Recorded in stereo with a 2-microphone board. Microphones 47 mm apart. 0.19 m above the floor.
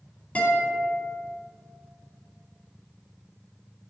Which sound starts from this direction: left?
A guitar, at 0.3 s.